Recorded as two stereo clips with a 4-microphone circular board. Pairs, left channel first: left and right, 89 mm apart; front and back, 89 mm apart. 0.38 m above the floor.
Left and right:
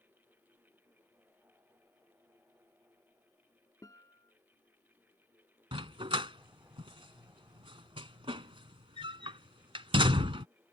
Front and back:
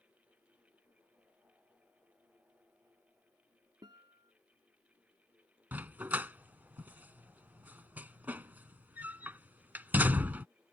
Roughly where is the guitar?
Behind left.